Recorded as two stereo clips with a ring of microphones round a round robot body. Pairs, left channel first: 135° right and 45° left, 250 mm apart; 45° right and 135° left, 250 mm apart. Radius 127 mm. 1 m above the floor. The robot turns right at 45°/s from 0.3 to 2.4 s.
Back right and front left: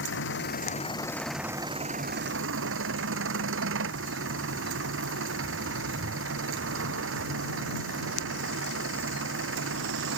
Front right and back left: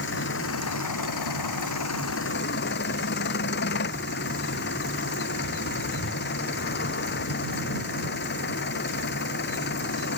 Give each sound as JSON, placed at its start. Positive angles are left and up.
{"t": 0.0, "sound": "an engine running", "azimuth_deg": -90}